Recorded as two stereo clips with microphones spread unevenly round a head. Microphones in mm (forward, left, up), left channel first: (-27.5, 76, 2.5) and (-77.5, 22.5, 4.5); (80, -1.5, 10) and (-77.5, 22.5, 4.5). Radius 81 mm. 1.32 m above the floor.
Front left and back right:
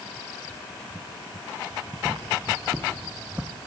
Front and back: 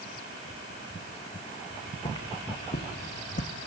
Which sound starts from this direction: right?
Footsteps, at 1.7 s.